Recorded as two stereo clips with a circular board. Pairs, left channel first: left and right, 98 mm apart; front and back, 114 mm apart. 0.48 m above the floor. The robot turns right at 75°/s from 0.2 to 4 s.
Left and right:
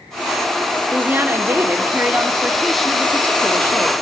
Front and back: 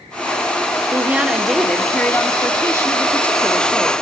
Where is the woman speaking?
135° right, 1.3 m; by 3.9 s 90° left, 1.3 m.